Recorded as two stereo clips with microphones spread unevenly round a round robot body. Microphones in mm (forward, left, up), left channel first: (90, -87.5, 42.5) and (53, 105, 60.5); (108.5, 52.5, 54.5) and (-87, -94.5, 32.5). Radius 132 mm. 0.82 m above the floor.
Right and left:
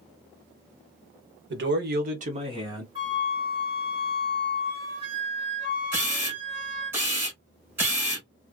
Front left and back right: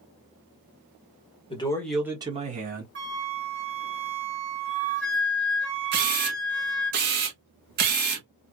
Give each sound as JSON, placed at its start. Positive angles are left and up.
{"t": 1.5, "sound": "a man speaking", "azimuth_deg": 105, "distance_m": 1.0}
{"t": 3.0, "sound": "a flute", "azimuth_deg": 170, "distance_m": 1.1}
{"t": 5.9, "sound": "a camera shutter", "azimuth_deg": 175, "distance_m": 0.6}